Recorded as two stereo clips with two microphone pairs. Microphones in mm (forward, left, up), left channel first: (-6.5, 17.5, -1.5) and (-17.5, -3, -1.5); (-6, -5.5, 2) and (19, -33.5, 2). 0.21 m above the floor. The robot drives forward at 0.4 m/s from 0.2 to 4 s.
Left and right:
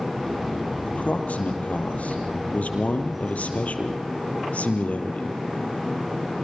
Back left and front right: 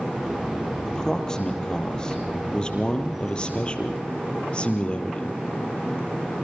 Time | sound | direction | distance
0.8 | a man speaking | 55° left | 5.5 m